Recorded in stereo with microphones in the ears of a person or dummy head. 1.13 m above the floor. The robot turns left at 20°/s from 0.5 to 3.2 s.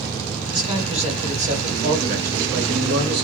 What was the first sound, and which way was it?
A man speaking, 25° right.